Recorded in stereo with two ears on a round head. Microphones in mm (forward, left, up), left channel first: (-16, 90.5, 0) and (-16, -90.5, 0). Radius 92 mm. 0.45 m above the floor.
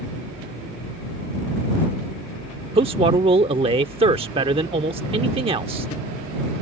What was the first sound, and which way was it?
A man speaking, 30° right (ahead or behind).